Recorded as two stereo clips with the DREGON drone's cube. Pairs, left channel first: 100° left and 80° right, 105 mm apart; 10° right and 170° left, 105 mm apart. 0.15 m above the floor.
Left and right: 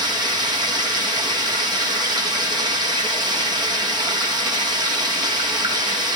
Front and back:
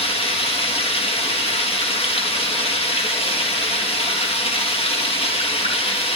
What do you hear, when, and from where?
0.0 s running water: 35° right, 3 m